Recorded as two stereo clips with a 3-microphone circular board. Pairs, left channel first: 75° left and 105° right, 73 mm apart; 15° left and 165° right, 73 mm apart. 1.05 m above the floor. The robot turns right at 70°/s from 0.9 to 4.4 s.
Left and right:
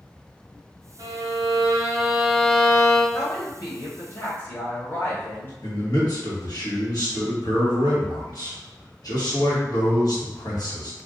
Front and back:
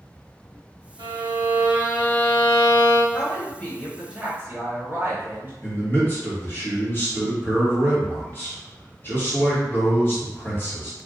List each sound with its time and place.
1.0 s a violin: 135° right, 1.0 m; by 3.0 s 5° left, 1.0 m
3.1 s a woman speaking: 50° left, 1.2 m; by 5.5 s 140° left, 1.2 m
5.6 s a man speaking: 70° left, 1.5 m